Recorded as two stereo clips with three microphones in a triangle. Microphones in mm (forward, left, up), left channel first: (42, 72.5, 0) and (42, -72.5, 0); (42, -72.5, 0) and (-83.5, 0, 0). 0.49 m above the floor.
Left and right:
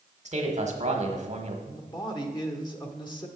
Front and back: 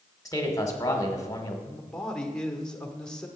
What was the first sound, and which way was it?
A man speaking, 90° right.